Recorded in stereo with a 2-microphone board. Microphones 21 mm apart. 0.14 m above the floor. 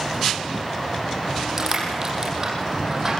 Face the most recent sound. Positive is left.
turn(degrees=-25)  # may be behind; listen again after turning